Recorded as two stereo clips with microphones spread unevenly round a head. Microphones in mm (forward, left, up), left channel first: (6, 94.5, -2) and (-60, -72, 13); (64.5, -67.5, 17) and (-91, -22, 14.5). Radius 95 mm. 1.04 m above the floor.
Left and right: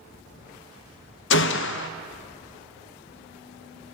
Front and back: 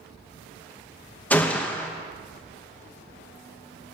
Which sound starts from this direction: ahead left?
A gunshot, at 1.3 s.